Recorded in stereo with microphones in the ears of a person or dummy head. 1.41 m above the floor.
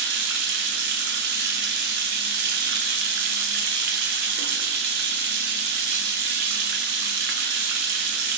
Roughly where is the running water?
Right.